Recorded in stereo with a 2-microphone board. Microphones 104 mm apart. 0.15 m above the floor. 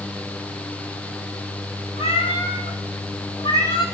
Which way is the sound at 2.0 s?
70° left (ahead or behind).